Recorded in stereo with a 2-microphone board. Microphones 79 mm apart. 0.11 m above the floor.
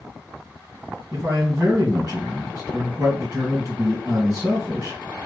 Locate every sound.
1.1 s a man speaking: 40° right (ahead or behind), 2 m